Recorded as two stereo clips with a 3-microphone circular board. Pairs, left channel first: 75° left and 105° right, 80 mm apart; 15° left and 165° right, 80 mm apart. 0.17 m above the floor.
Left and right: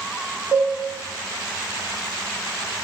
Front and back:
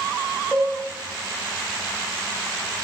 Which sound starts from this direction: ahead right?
A cowbell, at 0.5 s.